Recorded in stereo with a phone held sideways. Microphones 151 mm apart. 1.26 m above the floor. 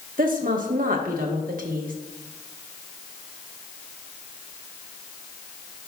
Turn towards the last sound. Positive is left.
turn(degrees=-65)  # may be behind; listen again after turning